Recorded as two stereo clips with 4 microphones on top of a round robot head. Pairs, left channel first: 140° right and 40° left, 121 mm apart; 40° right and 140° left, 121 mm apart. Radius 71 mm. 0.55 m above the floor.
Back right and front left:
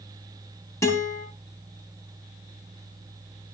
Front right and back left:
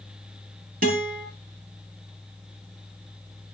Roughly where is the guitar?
Behind left.